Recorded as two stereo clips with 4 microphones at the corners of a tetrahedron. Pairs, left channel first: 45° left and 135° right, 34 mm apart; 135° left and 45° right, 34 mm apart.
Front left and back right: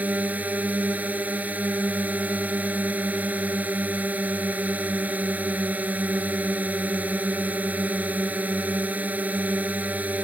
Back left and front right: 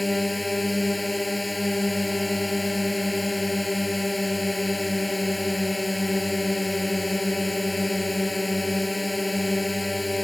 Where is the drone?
130° right.